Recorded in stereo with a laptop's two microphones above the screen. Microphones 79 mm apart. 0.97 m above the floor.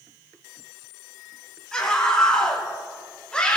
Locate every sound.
1.7 s a scream: 5° left (ahead or behind), 7 m; by 3.6 s 10° left (ahead or behind), 5 m